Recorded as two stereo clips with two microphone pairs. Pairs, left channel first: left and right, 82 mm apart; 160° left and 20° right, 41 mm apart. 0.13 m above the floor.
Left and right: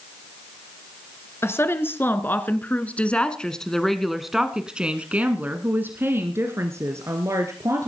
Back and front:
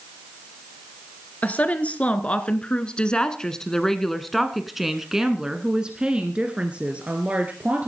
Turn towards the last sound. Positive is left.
turn(degrees=-60)